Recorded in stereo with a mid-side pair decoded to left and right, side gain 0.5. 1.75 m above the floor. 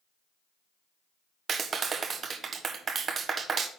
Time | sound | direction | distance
1.5 | a clap | 40° right | 1.2 m